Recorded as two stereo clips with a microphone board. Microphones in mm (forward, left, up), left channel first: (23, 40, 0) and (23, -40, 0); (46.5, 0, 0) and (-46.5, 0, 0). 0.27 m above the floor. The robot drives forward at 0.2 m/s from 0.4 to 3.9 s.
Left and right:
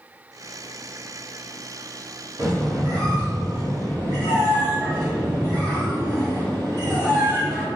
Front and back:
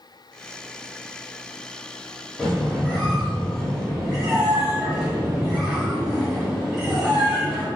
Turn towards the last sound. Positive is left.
turn(degrees=-90)